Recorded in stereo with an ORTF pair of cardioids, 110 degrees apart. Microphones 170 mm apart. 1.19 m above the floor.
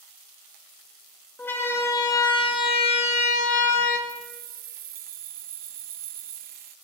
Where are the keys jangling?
55° right, 0.8 m.